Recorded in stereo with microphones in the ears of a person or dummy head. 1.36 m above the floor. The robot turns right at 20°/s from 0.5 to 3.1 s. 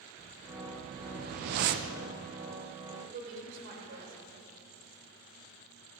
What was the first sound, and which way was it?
A whoosh, 30° right (ahead or behind).